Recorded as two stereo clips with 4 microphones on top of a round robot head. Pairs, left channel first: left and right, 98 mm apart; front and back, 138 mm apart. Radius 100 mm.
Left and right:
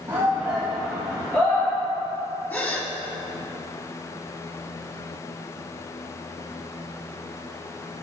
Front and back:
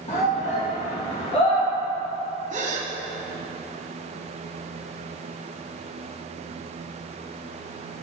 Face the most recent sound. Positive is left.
turn(degrees=155)